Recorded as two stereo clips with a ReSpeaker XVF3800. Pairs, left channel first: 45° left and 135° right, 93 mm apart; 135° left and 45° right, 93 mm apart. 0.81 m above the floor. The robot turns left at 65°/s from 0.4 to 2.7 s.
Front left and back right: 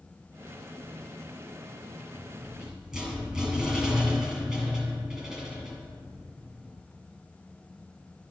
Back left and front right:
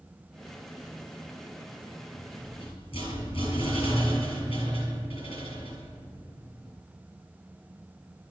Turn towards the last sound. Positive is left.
turn(degrees=145)